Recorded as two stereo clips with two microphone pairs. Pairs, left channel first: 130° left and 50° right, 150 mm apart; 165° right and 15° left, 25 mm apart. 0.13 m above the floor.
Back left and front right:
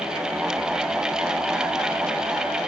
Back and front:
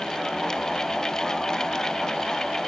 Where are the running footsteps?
No running footsteps in this recording.